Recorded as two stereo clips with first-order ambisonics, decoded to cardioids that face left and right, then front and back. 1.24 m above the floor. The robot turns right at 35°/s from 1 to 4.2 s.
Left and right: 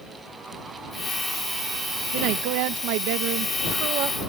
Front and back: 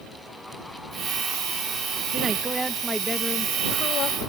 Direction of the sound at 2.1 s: 115° right.